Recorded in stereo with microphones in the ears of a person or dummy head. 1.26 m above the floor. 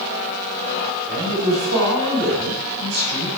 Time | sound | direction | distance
1.1 | a man speaking | 50° right (ahead or behind) | 6 m